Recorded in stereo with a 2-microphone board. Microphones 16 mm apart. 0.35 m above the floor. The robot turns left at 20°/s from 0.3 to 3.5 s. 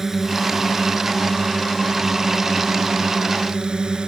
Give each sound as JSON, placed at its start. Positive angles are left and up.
{"t": 0.0, "sound": "a drone", "azimuth_deg": -30}